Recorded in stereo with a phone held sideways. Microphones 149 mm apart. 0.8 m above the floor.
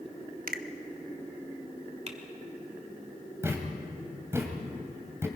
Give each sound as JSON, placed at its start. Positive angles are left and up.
{"t": 0.5, "sound": "a finger snap", "side_deg": -75, "distance_m": 0.8}
{"t": 2.1, "sound": "typing on a keyboard", "side_deg": -45, "distance_m": 1.8}
{"t": 3.4, "sound": "a thud", "side_deg": -20, "distance_m": 2.5}